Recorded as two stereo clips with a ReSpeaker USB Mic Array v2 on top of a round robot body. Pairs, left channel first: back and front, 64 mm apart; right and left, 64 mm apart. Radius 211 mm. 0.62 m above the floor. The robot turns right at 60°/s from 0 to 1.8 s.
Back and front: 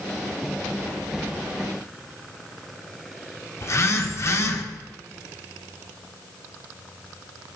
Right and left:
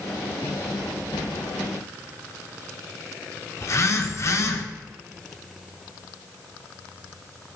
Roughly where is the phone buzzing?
Behind right.